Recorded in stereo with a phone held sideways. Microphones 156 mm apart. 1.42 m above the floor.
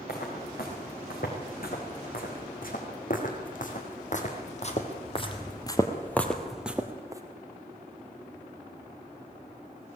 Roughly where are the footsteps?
Left.